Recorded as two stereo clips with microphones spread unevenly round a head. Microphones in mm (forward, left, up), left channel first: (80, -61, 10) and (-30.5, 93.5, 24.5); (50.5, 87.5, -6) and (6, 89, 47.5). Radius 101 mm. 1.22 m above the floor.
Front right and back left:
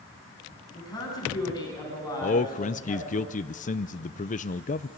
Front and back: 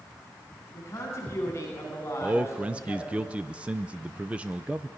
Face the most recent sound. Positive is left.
turn(degrees=-45)